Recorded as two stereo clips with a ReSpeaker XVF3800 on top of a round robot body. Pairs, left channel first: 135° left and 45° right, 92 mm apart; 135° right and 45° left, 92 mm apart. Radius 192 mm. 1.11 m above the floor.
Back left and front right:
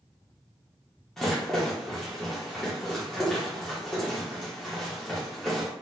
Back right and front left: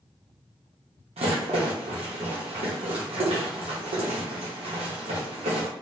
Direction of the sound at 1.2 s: 50° left.